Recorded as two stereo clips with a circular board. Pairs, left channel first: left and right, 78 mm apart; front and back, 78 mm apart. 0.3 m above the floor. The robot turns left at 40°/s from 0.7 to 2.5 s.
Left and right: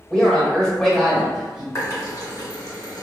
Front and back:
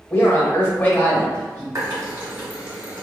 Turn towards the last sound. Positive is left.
turn(degrees=110)